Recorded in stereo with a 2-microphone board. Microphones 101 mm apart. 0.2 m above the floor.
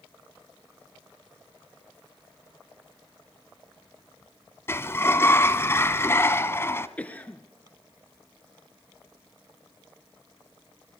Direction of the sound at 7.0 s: 15° left (ahead or behind).